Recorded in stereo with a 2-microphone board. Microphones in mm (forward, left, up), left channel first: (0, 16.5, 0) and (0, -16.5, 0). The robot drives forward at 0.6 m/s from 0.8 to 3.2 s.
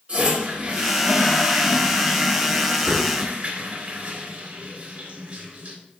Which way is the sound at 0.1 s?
40° right (ahead or behind).